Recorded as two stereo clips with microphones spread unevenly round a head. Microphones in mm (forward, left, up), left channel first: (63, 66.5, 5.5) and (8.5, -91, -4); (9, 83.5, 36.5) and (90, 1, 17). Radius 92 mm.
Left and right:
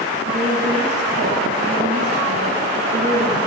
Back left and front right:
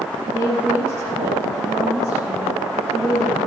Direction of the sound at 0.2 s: 95° right.